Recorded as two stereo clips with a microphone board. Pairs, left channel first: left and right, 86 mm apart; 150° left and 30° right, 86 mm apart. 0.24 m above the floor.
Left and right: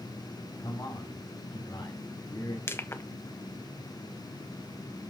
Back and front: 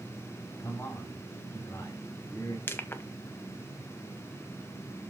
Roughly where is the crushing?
Behind left.